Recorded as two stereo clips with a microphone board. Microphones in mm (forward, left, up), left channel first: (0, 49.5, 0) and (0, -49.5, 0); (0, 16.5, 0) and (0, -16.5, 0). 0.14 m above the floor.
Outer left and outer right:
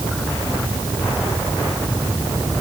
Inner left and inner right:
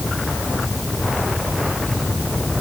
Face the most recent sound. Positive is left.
No sound to turn to.